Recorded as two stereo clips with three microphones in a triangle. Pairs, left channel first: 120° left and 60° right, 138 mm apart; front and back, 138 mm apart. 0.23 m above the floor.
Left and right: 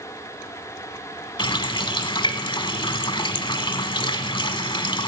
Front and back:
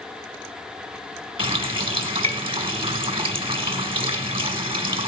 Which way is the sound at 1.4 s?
155° left.